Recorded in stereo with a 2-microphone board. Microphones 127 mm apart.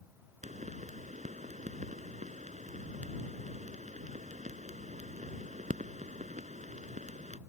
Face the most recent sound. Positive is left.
turn(degrees=-80)